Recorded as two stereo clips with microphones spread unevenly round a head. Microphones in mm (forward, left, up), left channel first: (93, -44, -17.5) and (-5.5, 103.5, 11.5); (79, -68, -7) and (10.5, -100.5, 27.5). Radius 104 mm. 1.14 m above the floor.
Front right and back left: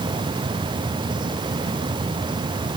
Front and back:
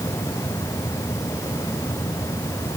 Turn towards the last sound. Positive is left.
No sound to turn to.